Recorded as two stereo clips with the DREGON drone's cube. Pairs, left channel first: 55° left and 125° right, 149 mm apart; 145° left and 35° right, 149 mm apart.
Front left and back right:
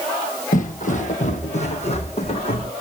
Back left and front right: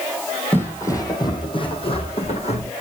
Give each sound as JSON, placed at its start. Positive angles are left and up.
{"t": 0.5, "sound": "footsteps", "azimuth_deg": 70, "distance_m": 2.0}